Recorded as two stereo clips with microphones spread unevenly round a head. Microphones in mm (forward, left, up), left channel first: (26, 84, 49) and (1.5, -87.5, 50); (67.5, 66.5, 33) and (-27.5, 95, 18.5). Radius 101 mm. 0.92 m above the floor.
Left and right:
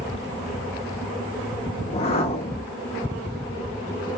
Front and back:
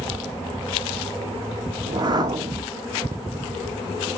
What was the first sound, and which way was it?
A whoosh, 130° left.